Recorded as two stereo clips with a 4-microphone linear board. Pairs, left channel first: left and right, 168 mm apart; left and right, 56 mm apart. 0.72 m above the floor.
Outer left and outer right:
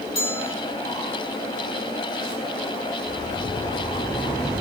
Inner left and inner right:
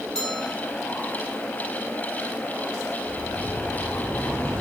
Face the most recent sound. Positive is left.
turn(degrees=10)  # may be behind; listen again after turning